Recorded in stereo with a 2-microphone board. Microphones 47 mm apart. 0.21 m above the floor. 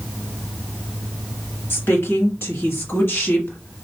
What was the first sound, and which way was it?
A woman speaking, 55° left (ahead or behind).